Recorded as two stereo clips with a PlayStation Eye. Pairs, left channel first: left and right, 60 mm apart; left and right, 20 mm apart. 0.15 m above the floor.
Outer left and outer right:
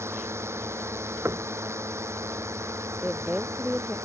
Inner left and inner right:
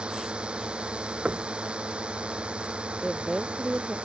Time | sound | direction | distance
0.0 | a drone | 50° right (ahead or behind) | ?
1.2 | knocking | 50° right (ahead or behind) | ?
3.0 | a woman speaking | 20° right (ahead or behind) | ?